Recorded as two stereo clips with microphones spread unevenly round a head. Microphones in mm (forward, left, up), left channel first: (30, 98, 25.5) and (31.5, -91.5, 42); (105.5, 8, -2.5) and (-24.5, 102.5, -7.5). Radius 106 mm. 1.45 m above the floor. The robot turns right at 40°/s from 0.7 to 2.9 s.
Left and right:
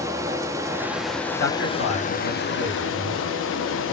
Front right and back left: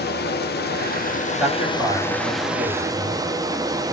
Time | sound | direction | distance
0.0 | running water | 15° right | 0.8 m
1.4 | a man speaking | 65° left | 2.5 m